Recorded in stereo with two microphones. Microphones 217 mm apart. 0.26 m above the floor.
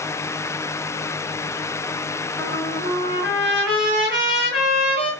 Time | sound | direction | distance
2.4 | a trumpet | 60° right (ahead or behind) | 4 m